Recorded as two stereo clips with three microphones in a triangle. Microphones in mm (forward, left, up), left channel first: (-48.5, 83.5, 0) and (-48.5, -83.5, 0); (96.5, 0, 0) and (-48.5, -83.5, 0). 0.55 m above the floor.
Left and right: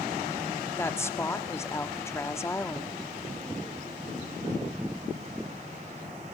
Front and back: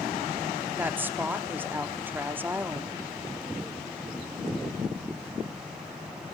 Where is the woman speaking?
145° left, 1.3 m.